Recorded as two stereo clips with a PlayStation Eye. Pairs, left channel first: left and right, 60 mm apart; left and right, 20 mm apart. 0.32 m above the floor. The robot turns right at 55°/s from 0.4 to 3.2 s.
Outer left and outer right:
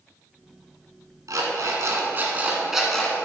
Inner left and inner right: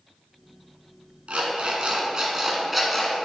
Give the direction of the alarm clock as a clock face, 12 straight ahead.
3 o'clock.